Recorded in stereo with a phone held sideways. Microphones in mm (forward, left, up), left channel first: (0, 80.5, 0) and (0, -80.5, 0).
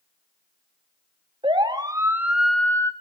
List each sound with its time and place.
1.4 s a siren: 30° right (ahead or behind), 2.5 m; by 2.9 s 20° left (ahead or behind), 1.6 m